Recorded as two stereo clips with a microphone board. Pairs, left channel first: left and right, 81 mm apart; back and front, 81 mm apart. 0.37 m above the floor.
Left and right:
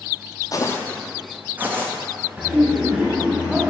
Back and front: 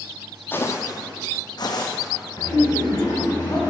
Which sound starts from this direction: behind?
Laughter, at 2.4 s.